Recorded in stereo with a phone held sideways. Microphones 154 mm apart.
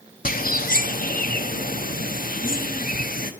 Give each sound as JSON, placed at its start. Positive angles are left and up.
{"t": 0.2, "sound": "a bird", "side_deg": 65, "distance_m": 0.7}